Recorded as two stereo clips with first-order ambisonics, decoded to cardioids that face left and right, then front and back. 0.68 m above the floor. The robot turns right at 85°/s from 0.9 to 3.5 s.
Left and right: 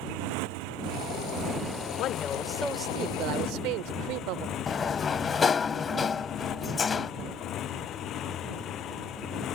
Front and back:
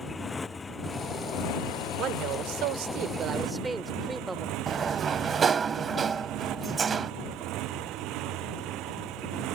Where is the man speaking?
130° left; by 4.5 s 100° right.